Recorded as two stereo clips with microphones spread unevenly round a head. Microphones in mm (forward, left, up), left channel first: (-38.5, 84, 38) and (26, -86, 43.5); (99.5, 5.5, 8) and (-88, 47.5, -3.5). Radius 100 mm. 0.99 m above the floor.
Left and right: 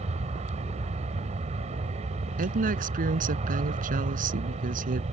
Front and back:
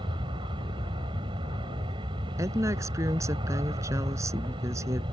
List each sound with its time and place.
0.0 s an aircraft: 125° right
2.4 s a woman speaking: 115° right